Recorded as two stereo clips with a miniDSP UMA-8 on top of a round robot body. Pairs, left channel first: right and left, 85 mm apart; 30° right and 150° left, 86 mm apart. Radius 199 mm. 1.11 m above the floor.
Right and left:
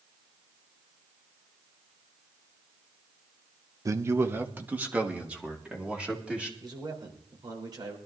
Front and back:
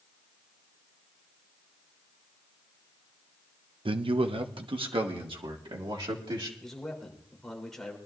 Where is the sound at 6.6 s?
55° left, 3.5 m.